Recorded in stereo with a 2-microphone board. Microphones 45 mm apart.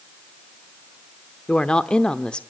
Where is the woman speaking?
20° left (ahead or behind), 0.7 m.